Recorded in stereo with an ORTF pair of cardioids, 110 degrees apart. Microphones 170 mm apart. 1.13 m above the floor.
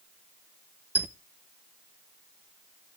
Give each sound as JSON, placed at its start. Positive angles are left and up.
{"t": 0.9, "sound": "a squeak", "azimuth_deg": -10, "distance_m": 0.6}